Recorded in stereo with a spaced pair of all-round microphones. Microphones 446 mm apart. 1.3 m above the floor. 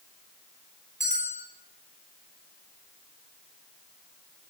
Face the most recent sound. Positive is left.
turn(degrees=-50)  # may be behind; listen again after turning